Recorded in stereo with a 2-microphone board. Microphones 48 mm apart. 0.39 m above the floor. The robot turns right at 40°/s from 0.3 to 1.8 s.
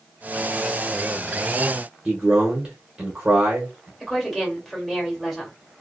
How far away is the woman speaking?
About 1.3 m.